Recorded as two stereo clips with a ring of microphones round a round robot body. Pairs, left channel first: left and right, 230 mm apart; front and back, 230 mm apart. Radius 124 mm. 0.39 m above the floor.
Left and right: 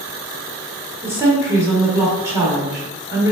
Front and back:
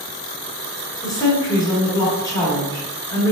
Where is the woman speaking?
35° right, 1.1 m.